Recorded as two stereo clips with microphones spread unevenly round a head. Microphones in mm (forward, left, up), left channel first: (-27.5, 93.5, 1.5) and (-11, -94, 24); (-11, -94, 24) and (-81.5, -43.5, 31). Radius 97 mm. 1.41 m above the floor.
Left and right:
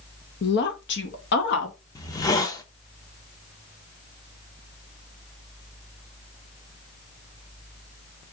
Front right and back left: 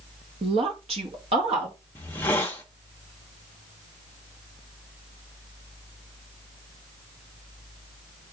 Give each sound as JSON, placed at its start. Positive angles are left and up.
{"t": 0.4, "sound": "a woman speaking", "azimuth_deg": 120, "distance_m": 0.8}
{"t": 1.9, "sound": "a hiss", "azimuth_deg": 30, "distance_m": 0.6}